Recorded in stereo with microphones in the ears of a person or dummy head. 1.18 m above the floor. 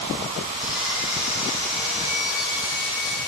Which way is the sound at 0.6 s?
10° right (ahead or behind).